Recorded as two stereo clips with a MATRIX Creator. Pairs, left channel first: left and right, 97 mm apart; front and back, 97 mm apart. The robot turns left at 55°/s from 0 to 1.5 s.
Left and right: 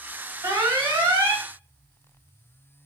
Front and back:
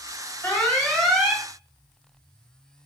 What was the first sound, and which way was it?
An alarm, 55° right.